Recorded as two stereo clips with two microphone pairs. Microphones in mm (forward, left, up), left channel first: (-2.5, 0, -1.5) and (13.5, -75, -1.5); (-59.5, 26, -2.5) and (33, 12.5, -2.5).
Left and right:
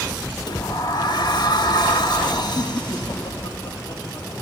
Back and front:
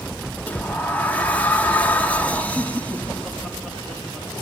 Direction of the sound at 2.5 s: 85° left.